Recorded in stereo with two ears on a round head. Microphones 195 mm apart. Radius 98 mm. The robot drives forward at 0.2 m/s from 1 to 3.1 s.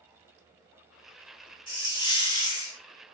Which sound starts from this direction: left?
A hiss, at 1.7 s.